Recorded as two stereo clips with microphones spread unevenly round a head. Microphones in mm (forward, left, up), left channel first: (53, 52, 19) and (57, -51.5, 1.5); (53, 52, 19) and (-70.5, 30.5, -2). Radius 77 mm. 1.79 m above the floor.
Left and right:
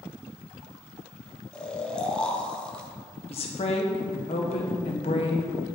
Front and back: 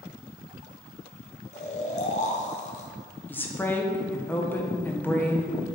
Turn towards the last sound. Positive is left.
turn(degrees=80)